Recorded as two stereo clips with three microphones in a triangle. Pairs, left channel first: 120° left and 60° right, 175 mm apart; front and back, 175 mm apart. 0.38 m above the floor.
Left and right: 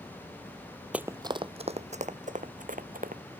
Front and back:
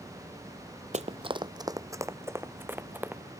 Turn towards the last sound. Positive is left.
turn(degrees=-100)